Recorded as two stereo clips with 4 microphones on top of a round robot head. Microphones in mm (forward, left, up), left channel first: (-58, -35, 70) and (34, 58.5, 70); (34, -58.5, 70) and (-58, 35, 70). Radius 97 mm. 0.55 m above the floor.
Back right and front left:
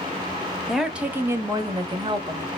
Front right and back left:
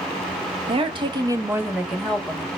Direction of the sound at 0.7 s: 135° left.